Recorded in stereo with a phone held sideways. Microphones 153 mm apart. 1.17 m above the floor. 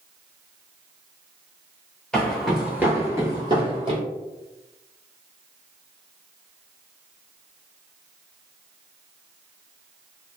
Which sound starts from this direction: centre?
Footsteps, at 2.1 s.